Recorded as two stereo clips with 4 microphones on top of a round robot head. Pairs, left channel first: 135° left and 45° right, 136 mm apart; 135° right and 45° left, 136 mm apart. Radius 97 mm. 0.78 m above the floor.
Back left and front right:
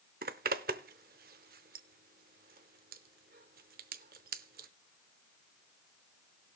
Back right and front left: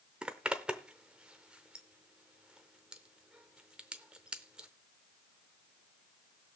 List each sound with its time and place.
0.2 s a zipper: 40° right, 0.5 m